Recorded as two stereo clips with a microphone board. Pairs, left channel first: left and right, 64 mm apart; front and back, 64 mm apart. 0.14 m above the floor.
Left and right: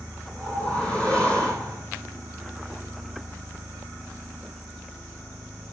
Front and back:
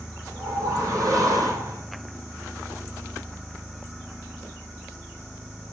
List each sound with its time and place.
0.3 s a whoosh: 160° left, 3 m